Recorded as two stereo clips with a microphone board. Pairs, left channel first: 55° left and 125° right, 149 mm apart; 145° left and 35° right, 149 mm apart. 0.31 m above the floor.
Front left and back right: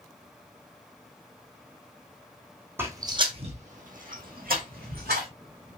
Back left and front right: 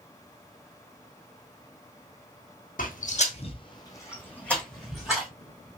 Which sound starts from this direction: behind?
Footsteps, at 2.8 s.